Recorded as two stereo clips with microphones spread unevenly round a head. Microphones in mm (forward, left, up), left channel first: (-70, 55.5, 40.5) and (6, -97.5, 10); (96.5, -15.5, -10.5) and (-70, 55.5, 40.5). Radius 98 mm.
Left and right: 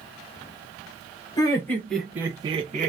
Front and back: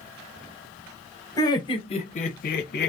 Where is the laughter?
45° left, 1.1 m; by 2.9 s 30° right, 0.8 m.